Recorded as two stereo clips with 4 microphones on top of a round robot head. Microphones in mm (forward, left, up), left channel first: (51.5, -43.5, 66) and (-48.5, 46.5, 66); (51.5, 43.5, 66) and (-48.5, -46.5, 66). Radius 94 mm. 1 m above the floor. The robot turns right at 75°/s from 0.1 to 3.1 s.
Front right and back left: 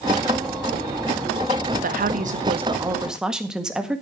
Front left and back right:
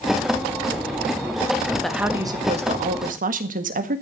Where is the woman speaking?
125° left, 1.7 m; by 4.0 s 135° right, 1.7 m.